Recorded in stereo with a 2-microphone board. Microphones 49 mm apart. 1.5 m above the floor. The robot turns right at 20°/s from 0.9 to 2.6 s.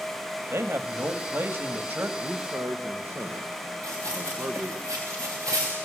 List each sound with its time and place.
0.5 s a man speaking: 65° right (ahead or behind), 2 m; by 2.1 s 40° right (ahead or behind), 2 m
2.2 s a man speaking: 45° right (ahead or behind), 1.8 m; by 4.8 s 50° right (ahead or behind), 1.8 m
3.8 s running footsteps: 70° right (ahead or behind), 8 m; by 5.7 s 75° right (ahead or behind), 7.5 m